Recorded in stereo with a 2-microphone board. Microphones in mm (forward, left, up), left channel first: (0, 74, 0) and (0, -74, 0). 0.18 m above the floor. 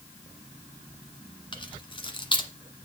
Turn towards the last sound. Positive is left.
turn(degrees=35)  # may be behind; listen again after turning